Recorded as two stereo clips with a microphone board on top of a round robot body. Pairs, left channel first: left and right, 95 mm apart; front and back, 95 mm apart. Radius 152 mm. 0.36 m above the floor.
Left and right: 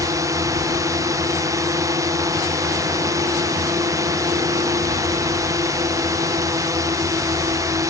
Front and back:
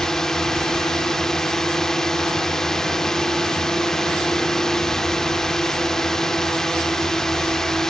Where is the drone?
80° right.